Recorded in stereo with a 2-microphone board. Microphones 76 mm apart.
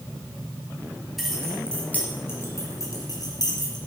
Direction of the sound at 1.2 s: Centre (ahead or behind).